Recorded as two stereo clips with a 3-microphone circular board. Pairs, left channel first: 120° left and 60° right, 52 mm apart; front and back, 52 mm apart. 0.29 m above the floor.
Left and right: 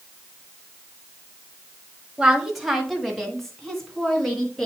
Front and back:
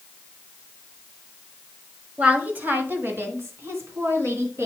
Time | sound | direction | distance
2.2 | a woman speaking | 130° right | 1.3 m